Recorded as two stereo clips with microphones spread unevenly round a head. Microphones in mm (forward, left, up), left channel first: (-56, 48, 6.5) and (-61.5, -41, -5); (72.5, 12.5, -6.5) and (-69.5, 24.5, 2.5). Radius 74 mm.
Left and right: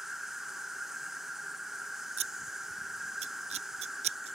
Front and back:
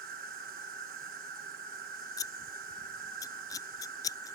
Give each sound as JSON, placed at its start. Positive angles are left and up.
{"t": 0.0, "sound": "an insect", "azimuth_deg": -175}
{"t": 2.2, "sound": "scissors", "azimuth_deg": -75}